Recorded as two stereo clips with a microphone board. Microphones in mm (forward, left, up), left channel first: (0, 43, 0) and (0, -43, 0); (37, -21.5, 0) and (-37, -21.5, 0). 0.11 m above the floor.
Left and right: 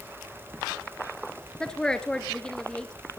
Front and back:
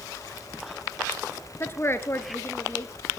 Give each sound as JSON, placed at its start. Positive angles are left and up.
{"t": 1.6, "sound": "a woman speaking", "azimuth_deg": 15, "distance_m": 1.5}